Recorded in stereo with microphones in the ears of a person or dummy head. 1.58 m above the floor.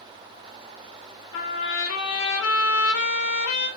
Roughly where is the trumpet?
Left.